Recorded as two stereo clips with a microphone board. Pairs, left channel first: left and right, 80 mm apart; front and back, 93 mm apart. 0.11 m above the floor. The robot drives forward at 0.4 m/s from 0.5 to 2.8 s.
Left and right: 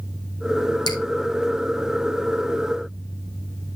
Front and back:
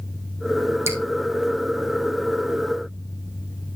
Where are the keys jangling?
No keys jangling in this recording.